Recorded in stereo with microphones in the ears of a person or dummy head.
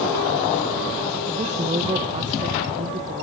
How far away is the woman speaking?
About 1.1 m.